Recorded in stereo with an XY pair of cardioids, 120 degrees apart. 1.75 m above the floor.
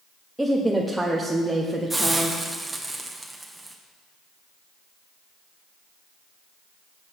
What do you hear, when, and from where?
0.4 s a woman speaking: 5° right, 1.1 m
1.9 s a hiss: 10° right, 1.3 m